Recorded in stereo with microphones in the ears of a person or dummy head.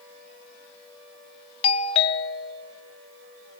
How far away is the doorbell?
About 0.8 m.